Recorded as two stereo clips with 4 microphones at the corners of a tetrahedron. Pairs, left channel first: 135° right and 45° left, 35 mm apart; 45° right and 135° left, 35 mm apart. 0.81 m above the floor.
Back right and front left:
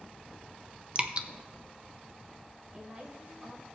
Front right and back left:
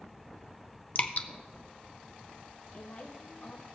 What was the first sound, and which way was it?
Dripping, 10° right.